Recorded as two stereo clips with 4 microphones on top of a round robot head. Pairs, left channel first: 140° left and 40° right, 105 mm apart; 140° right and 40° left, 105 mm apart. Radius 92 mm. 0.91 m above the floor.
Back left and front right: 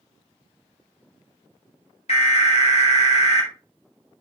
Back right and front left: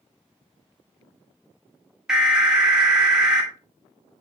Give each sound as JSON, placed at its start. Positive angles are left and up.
{"t": 2.1, "sound": "an alarm", "azimuth_deg": 125, "distance_m": 2.5}